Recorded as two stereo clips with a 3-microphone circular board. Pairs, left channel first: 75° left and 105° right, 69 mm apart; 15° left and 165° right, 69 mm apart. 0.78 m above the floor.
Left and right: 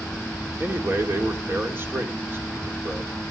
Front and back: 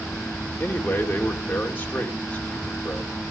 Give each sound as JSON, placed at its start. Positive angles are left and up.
{"t": 0.6, "sound": "a man speaking", "azimuth_deg": -50, "distance_m": 2.5}